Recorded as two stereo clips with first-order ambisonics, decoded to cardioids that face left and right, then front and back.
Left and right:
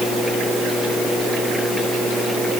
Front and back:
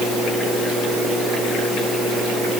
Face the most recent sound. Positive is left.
No sound to turn to.